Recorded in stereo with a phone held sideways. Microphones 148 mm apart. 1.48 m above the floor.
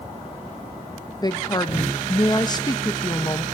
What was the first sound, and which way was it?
A woman speaking, 30° left (ahead or behind).